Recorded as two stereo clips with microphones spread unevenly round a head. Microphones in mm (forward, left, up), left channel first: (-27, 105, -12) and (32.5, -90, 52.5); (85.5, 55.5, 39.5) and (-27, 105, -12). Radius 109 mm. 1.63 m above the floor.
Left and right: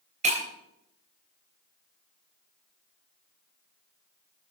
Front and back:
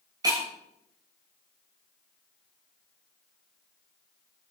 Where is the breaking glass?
125° right, 3.5 m.